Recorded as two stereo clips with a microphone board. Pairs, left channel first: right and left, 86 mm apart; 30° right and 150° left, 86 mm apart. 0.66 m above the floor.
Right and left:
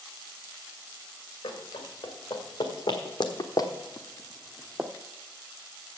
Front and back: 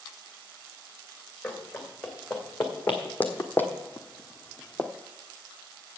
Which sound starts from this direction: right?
Running footsteps, at 1.4 s.